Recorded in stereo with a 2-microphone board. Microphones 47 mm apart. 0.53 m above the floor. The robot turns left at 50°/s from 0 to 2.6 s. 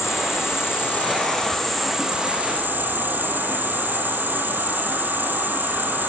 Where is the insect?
90° left, 3.5 m; by 6.1 s 40° right, 3.5 m.